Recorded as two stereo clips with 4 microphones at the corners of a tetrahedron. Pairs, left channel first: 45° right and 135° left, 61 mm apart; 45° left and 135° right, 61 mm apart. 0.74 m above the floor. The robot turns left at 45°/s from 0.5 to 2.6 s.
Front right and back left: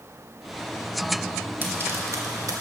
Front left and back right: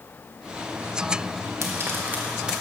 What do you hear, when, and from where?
1.6 s frying: 170° right, 1.7 m; by 2.6 s 145° left, 1.7 m